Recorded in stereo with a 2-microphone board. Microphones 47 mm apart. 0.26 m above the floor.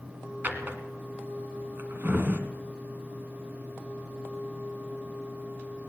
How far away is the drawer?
About 1.3 m.